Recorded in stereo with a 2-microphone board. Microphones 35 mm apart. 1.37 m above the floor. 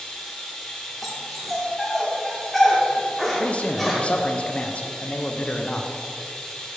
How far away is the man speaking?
About 0.5 m.